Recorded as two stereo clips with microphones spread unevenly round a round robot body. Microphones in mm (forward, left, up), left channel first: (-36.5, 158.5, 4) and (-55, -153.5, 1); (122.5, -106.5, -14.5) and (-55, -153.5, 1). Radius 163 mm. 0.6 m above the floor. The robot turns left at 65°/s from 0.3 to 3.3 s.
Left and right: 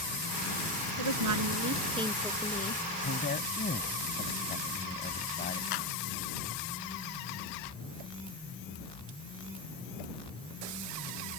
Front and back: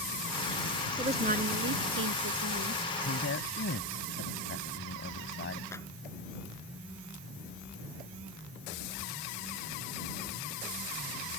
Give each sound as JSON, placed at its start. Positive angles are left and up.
{"t": 1.0, "sound": "a woman speaking", "azimuth_deg": -100}
{"t": 3.0, "sound": "a man speaking", "azimuth_deg": 40}
{"t": 5.7, "sound": "a clap", "azimuth_deg": 95}